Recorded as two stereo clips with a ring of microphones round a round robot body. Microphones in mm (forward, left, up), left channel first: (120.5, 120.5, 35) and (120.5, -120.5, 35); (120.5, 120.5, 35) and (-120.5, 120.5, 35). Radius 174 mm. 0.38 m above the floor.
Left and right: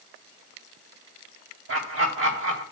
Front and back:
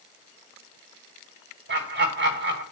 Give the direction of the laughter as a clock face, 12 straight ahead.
4 o'clock.